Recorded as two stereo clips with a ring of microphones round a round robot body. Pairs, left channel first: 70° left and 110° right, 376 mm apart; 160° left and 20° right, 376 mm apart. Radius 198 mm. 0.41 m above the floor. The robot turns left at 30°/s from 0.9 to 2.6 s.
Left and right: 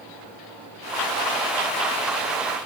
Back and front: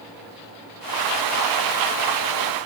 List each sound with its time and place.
Only background noise.